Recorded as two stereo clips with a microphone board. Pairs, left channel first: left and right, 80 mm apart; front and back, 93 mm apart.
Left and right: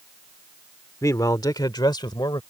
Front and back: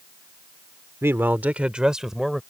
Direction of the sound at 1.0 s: 125° left.